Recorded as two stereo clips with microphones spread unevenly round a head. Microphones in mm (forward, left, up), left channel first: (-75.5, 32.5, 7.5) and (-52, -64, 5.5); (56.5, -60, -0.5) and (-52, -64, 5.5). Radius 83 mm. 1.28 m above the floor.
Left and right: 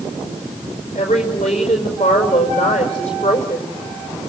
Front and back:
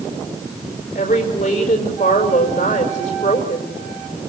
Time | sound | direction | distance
0.9 | a woman speaking | 45° left | 5 m